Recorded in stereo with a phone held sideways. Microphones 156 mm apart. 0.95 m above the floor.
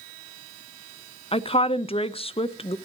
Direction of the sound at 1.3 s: 35° left (ahead or behind).